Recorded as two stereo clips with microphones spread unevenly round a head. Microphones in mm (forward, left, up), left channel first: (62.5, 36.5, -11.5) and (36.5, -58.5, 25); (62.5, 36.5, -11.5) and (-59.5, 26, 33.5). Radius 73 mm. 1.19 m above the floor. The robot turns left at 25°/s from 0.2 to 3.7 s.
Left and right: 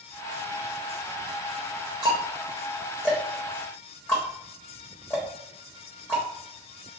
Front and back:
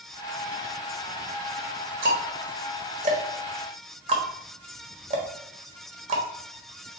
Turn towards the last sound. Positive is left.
turn(degrees=155)